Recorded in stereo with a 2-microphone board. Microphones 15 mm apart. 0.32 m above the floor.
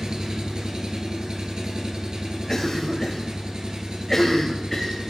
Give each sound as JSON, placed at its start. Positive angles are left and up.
{"t": 0.0, "sound": "an engine running", "side_deg": -60, "distance_m": 1.2}
{"t": 2.5, "sound": "a cough", "side_deg": 25, "distance_m": 1.2}